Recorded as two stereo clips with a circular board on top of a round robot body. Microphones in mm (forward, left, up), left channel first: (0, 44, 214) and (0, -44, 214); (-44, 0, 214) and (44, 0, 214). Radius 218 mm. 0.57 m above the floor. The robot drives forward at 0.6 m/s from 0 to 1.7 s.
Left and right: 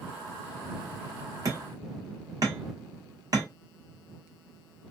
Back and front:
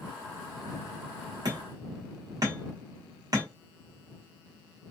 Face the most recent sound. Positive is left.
turn(degrees=-45)